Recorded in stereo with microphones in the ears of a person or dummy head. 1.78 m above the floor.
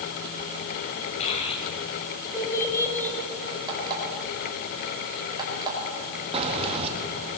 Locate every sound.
1.2 s a child speaking: 30° left (ahead or behind), 5.5 m; by 3.2 s 10° left (ahead or behind), 5 m
3.7 s an alarm clock: 25° right (ahead or behind), 4.5 m
6.3 s keys jangling: 30° right (ahead or behind), 1.7 m